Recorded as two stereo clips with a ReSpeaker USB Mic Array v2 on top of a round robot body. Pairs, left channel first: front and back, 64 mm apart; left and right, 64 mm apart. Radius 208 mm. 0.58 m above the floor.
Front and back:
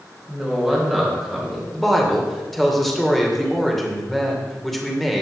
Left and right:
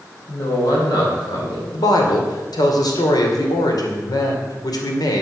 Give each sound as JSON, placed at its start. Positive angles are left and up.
{"t": 0.3, "sound": "a woman speaking", "azimuth_deg": 90, "distance_m": 4.5}
{"t": 1.7, "sound": "a woman speaking", "azimuth_deg": 85, "distance_m": 2.5}